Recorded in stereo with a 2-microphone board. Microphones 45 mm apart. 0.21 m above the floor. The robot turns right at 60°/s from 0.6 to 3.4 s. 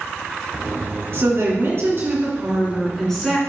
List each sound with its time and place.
1.1 s a woman speaking: 110° right, 2.5 m; by 3.4 s 25° left, 2.5 m